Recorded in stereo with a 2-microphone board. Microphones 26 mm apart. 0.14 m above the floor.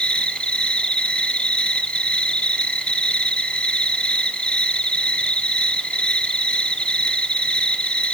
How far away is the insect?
About 1.1 m.